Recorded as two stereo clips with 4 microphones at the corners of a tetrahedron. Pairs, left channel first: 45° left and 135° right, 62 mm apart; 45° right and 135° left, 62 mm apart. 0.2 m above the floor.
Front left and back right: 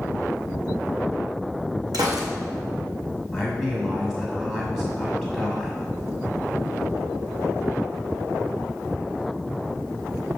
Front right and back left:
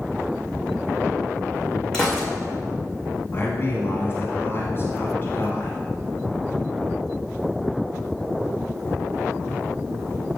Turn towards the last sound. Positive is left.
turn(degrees=-55)